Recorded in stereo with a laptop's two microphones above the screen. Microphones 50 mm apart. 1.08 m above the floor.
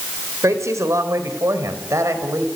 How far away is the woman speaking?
About 4 m.